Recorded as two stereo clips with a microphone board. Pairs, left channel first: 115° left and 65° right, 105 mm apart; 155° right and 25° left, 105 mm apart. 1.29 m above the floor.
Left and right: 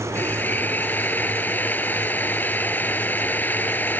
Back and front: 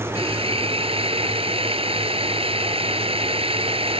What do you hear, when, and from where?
0.1 s a drill: 40° left